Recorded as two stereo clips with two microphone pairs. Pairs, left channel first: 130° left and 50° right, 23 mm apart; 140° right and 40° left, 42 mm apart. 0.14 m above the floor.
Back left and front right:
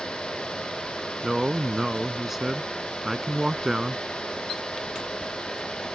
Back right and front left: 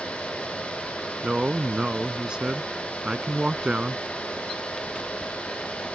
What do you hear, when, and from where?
1.2 s a man speaking: 5° left